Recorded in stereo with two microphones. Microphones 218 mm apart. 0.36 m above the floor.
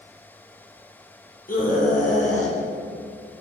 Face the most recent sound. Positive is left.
turn(degrees=35)  # may be behind; listen again after turning